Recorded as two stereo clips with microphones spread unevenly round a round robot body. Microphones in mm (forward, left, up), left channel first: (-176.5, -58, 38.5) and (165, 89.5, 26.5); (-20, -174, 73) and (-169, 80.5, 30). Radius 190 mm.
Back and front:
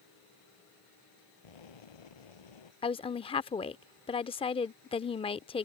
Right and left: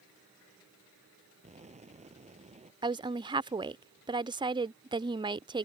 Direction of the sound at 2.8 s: 145° left.